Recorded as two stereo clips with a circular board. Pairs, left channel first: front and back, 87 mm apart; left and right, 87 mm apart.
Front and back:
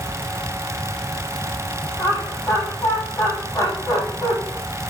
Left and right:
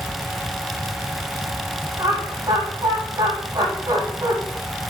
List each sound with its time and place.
2.0 s laughter: 55° right, 7.5 m